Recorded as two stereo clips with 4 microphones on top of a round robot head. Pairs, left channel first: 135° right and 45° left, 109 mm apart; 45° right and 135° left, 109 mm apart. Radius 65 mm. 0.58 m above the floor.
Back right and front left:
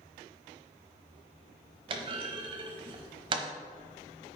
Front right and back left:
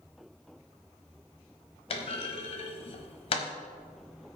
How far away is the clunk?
About 1.1 m.